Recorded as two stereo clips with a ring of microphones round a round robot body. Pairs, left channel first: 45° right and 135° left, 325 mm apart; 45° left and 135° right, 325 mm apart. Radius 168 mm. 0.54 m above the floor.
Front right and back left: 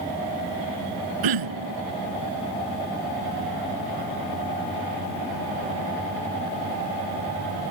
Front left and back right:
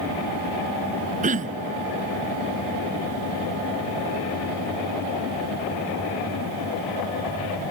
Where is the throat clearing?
155° left.